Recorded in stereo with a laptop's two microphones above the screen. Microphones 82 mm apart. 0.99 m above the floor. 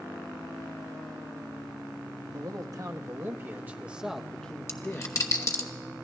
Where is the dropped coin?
40° left (ahead or behind), 1.0 m.